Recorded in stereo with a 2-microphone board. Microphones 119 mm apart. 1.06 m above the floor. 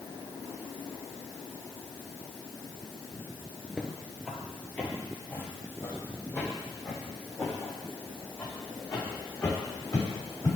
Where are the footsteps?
5° right (ahead or behind), 1.2 m; by 10.5 s 30° left (ahead or behind), 5.5 m.